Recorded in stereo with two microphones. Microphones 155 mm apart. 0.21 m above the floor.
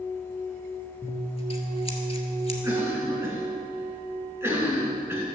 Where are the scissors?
40° left (ahead or behind), 1.3 m.